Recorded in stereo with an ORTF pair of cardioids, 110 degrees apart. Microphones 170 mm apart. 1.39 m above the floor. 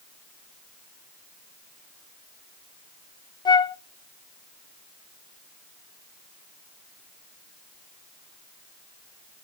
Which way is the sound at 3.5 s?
25° left.